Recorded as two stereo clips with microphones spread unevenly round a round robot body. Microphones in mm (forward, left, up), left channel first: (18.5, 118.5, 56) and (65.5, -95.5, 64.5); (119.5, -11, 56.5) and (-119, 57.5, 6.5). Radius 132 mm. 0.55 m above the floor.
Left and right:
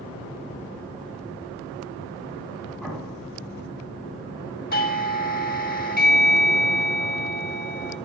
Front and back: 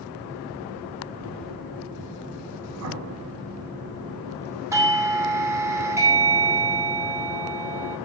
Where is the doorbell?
105° left, 1.4 m.